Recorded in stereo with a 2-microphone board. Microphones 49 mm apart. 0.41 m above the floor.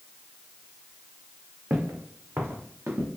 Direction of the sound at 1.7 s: 45° right (ahead or behind).